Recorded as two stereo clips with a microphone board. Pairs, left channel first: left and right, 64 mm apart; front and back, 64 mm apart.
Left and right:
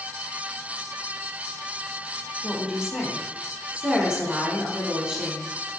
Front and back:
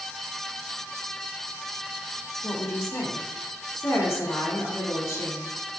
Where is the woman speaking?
15° right, 1.6 m.